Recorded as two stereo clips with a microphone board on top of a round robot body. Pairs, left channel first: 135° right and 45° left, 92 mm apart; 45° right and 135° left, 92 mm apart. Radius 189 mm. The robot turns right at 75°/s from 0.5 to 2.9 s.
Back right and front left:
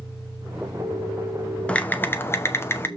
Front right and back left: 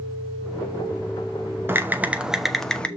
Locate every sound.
1.7 s typing on a keyboard: 165° left, 1.3 m; by 2.9 s 110° right, 1.3 m